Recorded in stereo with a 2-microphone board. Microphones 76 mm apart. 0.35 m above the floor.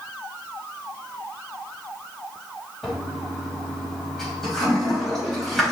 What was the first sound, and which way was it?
A toilet flushing, 5° left (ahead or behind).